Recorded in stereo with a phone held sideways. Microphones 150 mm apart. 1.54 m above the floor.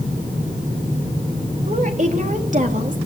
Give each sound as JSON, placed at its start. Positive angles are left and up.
{"t": 1.7, "sound": "a woman speaking", "side_deg": -50, "distance_m": 3.0}